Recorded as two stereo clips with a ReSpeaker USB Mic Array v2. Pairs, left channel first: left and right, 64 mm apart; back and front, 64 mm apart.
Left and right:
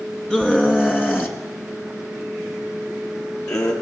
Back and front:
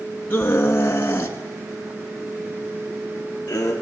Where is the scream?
155° left, 1.5 m; by 3.7 s 130° left, 3.5 m.